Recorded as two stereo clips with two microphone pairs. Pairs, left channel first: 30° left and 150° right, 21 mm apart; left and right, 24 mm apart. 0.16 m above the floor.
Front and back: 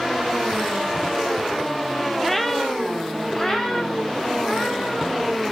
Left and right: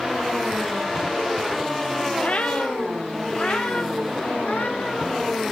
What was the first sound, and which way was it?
A cat meowing, 115° left.